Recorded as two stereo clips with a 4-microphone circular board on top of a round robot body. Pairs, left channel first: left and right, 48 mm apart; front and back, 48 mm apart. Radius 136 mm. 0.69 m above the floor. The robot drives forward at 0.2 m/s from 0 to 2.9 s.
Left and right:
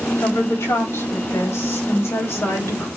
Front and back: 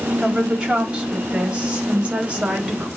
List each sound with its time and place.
0.2 s a woman speaking: 110° left, 4 m; by 2.9 s 115° left, 4.5 m